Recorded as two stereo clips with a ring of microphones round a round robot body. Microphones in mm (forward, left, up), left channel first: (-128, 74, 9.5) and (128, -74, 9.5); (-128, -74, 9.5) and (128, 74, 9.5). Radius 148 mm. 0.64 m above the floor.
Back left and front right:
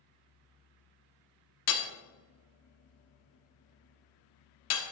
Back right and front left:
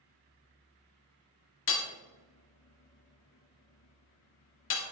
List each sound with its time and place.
1.7 s hammering: 175° left, 1.3 m